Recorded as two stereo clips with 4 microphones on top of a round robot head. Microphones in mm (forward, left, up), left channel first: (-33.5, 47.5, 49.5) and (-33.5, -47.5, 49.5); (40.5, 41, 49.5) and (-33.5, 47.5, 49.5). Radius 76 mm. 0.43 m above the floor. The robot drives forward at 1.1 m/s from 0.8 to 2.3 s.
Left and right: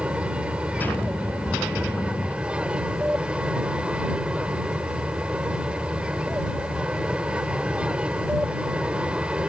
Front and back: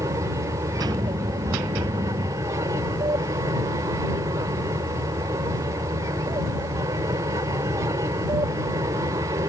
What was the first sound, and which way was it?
An aircraft, 165° right.